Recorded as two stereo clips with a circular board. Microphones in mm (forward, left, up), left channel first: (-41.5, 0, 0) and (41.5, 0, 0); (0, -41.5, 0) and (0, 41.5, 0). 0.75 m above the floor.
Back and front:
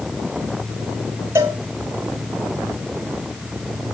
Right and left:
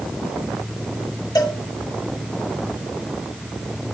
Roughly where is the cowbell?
Ahead right.